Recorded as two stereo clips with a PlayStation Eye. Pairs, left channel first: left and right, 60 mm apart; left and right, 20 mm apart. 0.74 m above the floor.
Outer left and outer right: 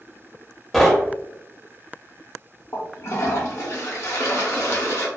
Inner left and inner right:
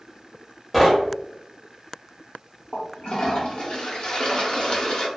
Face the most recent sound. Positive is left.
turn(degrees=55)  # may be behind; listen again after turning